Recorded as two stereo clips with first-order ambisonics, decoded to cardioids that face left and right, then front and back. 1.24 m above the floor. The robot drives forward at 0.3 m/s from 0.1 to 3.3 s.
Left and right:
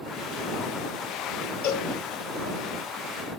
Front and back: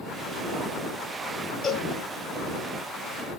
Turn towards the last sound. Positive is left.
turn(degrees=100)